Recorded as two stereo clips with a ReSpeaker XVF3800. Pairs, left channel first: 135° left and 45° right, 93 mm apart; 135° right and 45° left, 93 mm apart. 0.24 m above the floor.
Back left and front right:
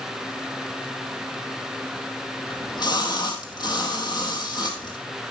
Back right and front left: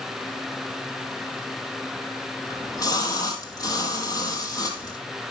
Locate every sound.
2.5 s a splash: 175° left, 2 m